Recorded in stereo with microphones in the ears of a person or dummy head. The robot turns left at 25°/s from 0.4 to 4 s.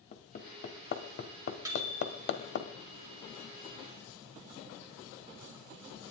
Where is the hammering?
40° left (ahead or behind), 2 m; by 2.6 s 60° left (ahead or behind), 2 m.